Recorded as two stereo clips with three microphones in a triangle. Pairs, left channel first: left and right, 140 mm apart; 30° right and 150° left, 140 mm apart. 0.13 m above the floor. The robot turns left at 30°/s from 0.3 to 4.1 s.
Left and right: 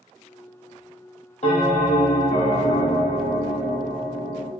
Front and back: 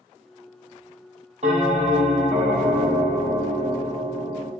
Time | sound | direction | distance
1.4 | a bell | 120° left | 1.2 m